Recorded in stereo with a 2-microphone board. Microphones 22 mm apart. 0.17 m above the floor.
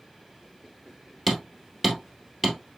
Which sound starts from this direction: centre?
Hammering, at 1.3 s.